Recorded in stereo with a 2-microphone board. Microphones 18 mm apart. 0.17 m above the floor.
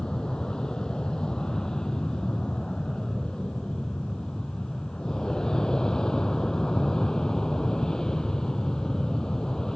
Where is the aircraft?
45° left (ahead or behind); by 9.8 s 35° left (ahead or behind).